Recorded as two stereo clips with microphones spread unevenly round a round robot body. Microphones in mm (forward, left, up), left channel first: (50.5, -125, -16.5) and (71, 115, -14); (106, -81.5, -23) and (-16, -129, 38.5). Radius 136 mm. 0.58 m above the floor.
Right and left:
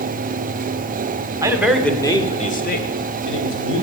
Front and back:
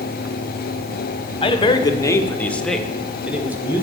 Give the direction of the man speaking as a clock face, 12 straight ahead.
12 o'clock.